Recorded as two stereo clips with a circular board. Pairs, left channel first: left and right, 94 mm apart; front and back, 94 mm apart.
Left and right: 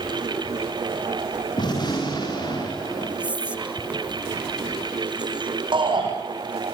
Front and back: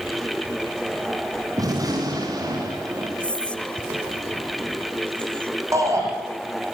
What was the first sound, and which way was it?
A gunshot, 130° left.